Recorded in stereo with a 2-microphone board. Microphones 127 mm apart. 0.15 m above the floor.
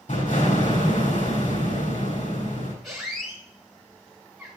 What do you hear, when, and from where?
0.1 s an explosion: 75° left (ahead or behind), 4 m
2.8 s a squeak: centre (ahead or behind), 4 m